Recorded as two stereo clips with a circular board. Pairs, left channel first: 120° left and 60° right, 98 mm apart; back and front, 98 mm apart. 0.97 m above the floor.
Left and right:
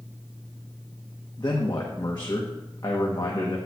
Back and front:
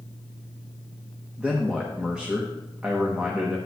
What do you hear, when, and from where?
1.4 s a man speaking: 75° left, 1.0 m